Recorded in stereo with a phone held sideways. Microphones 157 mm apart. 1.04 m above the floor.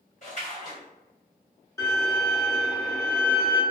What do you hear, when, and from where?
0.2 s a splash: 50° left (ahead or behind), 1.5 m
1.8 s a violin: 20° left (ahead or behind), 1.0 m